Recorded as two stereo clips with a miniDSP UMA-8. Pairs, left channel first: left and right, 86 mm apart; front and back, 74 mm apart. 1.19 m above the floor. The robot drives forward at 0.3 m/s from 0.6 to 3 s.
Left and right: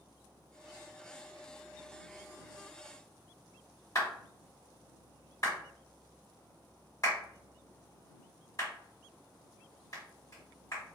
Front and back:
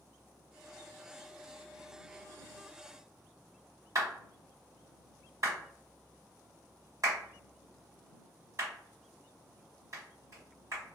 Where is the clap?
140° left, 1.7 m.